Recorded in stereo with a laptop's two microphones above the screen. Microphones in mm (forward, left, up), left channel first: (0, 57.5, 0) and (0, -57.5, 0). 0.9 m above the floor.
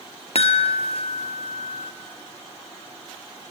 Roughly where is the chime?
Left.